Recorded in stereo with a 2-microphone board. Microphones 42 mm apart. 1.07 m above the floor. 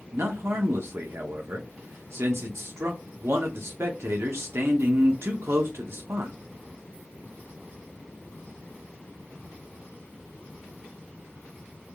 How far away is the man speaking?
About 0.6 m.